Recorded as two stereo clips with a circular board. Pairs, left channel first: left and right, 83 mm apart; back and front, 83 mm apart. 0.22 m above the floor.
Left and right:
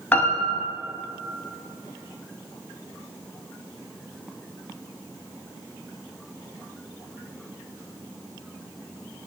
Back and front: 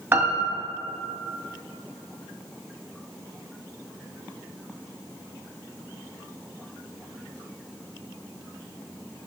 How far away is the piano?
About 0.5 m.